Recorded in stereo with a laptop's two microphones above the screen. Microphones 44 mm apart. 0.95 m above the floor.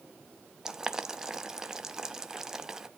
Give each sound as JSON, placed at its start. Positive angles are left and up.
{"t": 0.7, "sound": "boiling", "side_deg": -15, "distance_m": 0.6}